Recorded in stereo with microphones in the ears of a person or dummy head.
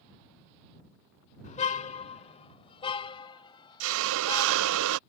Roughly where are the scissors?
No scissors in this recording.